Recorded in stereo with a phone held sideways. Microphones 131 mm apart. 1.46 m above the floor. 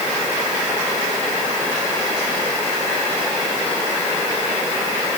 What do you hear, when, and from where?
Only background noise.